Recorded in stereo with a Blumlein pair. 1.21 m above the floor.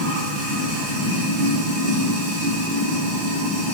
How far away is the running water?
About 1.6 m.